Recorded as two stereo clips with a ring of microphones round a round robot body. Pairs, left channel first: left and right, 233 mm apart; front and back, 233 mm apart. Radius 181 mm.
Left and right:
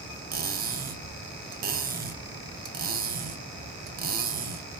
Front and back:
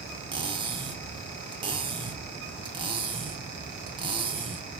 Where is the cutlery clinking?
120° right, 0.5 m.